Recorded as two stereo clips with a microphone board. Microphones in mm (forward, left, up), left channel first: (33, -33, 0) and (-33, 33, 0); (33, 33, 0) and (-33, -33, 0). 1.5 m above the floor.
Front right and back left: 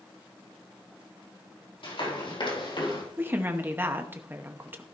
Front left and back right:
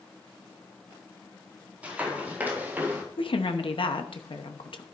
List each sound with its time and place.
1.8 s running footsteps: 60° right, 4.5 m; by 3.0 s 70° right, 3 m
3.2 s a woman speaking: 65° left, 0.9 m